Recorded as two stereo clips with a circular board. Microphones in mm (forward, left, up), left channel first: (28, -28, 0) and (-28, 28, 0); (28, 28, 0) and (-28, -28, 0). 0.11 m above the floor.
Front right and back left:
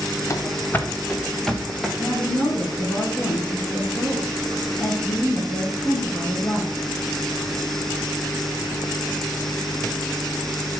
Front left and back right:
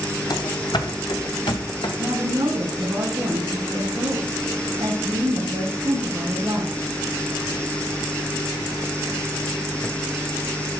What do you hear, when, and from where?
0.3 s running footsteps: 10° left, 1.5 m; by 1.9 s 50° left, 2 m
2.0 s a woman speaking: 85° right, 5 m